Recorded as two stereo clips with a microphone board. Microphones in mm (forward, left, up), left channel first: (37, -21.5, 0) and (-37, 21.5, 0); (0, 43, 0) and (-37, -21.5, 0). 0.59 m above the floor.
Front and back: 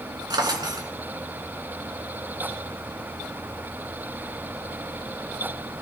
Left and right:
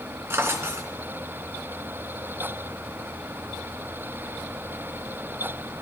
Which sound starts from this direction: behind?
A drawer, at 0.3 s.